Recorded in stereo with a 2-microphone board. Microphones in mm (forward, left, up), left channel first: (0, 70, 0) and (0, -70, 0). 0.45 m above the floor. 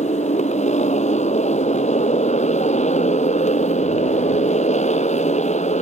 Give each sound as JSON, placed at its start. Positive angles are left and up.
{"t": 0.0, "sound": "a motorcycle", "side_deg": 55}